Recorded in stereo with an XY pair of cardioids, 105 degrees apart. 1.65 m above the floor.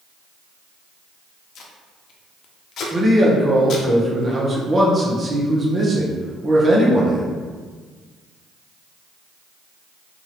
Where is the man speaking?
35° right, 1.1 m.